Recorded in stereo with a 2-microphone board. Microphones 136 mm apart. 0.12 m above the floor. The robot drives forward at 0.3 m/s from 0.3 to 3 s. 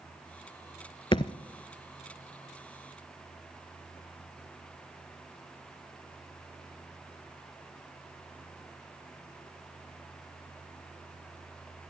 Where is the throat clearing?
I don't hear throat clearing.